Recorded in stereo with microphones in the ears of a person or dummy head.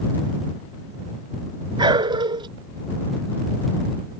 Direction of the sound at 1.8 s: 25° right (ahead or behind).